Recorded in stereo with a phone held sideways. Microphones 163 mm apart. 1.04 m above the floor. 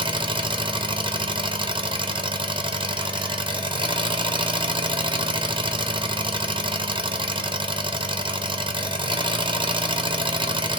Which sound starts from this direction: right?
An engine running, at 0.0 s.